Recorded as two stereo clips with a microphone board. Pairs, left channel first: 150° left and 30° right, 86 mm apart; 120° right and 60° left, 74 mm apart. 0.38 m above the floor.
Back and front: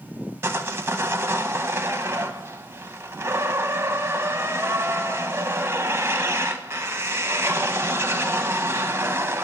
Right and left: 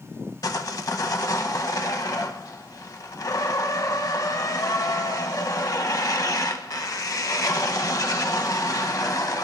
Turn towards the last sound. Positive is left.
turn(degrees=-90)